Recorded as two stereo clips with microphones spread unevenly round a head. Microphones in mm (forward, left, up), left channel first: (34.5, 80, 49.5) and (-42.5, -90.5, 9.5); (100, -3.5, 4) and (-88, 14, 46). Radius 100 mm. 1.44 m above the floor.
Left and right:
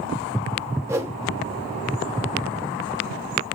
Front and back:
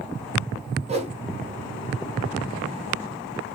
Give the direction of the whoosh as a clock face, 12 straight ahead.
7 o'clock.